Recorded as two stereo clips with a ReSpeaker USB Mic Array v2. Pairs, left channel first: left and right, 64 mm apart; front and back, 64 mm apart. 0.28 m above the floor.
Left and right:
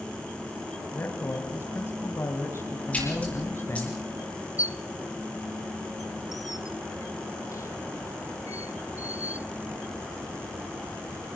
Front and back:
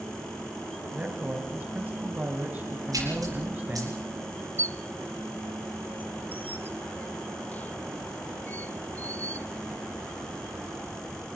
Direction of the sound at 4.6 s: 60° left.